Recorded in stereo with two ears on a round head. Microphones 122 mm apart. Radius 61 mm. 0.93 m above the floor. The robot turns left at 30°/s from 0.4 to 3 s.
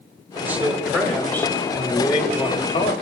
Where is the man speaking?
165° right, 3.5 m; by 2.9 s 120° left, 3.5 m.